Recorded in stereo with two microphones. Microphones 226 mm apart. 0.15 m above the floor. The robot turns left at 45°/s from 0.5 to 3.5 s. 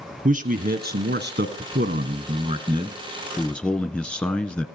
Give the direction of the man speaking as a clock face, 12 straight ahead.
2 o'clock.